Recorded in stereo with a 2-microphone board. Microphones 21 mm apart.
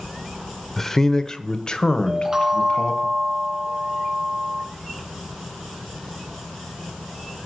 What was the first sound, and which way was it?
A man speaking, 20° left (ahead or behind).